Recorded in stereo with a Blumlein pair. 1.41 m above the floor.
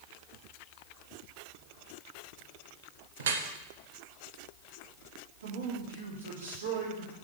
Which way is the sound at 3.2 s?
60° right.